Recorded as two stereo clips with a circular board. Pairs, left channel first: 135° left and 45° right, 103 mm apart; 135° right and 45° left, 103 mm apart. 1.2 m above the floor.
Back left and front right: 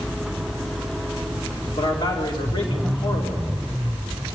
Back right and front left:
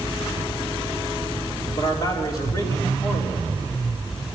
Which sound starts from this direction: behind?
A man speaking, at 1.8 s.